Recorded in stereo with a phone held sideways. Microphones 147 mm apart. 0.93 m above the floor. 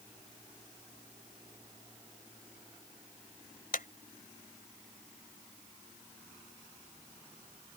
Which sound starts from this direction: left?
A clap, at 3.7 s.